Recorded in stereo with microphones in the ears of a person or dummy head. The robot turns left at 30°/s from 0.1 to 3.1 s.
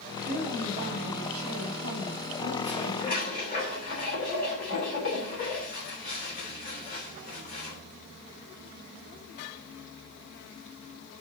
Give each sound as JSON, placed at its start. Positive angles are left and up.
{"t": 0.3, "sound": "a woman speaking", "azimuth_deg": -45, "distance_m": 2.5}
{"t": 2.6, "sound": "dishes clattering", "side_deg": 35, "distance_m": 3.0}